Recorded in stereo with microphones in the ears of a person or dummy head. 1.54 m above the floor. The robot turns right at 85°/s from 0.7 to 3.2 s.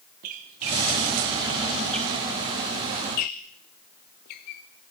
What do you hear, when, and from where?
0.2 s a squeak: 40° right (ahead or behind), 0.7 m; by 4.6 s 35° left (ahead or behind), 0.7 m